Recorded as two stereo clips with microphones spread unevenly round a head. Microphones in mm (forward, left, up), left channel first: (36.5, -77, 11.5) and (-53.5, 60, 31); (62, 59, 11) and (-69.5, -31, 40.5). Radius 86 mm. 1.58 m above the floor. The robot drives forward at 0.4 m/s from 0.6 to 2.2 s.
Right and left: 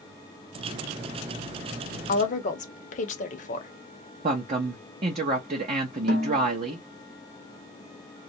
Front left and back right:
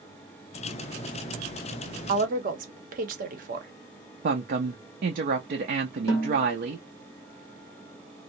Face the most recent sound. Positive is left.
turn(degrees=110)